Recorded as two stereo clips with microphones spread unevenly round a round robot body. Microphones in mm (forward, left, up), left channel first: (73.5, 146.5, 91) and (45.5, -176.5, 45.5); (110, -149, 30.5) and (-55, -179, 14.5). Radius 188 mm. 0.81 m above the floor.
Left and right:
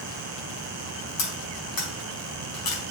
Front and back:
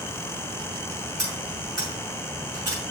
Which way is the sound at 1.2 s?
65° left.